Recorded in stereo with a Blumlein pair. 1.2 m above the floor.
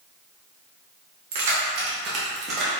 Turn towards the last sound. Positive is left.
turn(degrees=-20)